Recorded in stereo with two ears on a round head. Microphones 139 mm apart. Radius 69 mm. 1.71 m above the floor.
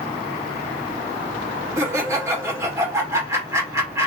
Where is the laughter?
20° right (ahead or behind), 2 m.